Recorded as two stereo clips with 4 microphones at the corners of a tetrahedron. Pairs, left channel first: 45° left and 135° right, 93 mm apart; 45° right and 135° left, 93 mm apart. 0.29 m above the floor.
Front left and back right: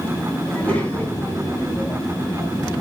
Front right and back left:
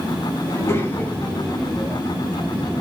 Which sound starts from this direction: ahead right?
A child speaking, at 0.5 s.